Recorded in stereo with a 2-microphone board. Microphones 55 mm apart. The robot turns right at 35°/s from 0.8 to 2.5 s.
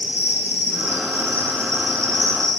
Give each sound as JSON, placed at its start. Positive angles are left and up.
{"t": 0.0, "sound": "an insect", "azimuth_deg": -150, "distance_m": 1.4}